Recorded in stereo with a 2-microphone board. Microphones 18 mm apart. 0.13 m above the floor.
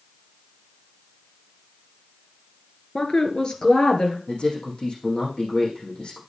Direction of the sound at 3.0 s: 40° left (ahead or behind).